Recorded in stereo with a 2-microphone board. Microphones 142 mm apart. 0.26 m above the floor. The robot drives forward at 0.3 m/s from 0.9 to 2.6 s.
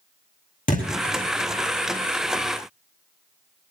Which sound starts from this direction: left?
A thud, at 0.7 s.